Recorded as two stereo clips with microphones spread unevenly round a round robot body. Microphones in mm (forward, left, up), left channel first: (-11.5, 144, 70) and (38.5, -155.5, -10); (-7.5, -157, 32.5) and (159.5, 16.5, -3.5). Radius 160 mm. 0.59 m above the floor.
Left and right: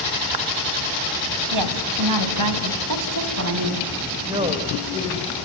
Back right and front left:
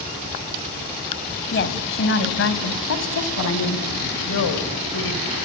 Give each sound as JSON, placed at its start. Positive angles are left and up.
{"t": 1.5, "sound": "a woman speaking", "azimuth_deg": -90, "distance_m": 3.5}
{"t": 4.3, "sound": "a woman speaking", "azimuth_deg": -155, "distance_m": 2.5}